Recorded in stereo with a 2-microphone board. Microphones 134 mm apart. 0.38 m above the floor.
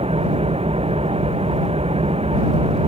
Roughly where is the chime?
No chime in this recording.